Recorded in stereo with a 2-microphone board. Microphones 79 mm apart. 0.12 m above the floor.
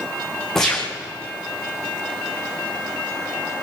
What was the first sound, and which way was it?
A gunshot, 5° left (ahead or behind).